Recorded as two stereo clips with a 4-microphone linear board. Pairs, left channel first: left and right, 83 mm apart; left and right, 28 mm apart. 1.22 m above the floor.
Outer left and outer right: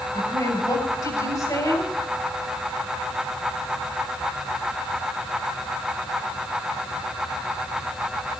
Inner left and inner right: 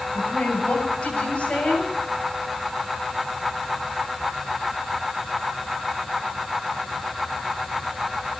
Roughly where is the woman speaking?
Left.